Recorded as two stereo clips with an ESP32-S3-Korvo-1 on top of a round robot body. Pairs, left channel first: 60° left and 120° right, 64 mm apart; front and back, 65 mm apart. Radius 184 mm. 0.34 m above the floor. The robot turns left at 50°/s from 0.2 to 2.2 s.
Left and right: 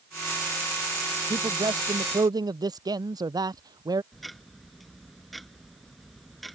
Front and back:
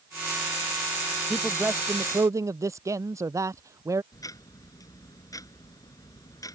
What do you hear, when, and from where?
1.3 s a man speaking: 95° right; by 4.0 s 140° right
4.1 s ticking: 30° right